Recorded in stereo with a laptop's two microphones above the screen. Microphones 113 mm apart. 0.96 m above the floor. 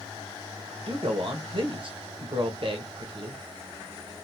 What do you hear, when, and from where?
0.9 s a man speaking: 50° right (ahead or behind), 0.7 m